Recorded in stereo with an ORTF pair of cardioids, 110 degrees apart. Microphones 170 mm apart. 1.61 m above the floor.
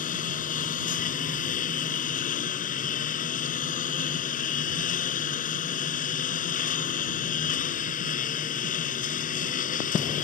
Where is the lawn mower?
55° left.